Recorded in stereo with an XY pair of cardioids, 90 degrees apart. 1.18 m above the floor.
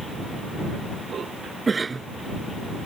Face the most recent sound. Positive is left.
turn(degrees=-35)